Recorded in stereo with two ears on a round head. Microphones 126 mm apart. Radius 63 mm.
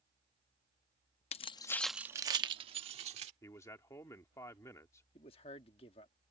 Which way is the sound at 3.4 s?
20° left (ahead or behind).